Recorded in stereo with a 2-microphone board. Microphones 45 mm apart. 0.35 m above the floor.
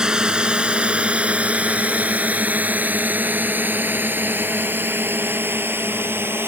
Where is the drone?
15° right (ahead or behind); by 6.5 s 55° right (ahead or behind).